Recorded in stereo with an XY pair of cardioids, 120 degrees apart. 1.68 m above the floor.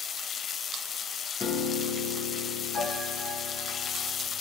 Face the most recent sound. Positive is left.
turn(degrees=40)